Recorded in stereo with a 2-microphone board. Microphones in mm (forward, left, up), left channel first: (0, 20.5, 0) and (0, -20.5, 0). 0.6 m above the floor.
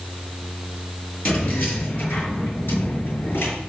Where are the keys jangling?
45° left (ahead or behind), 6 m; by 3.5 s 70° left (ahead or behind), 6 m.